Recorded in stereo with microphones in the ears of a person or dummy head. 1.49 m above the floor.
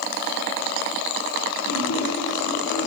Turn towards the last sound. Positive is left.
turn(degrees=65)  # may be behind; listen again after turning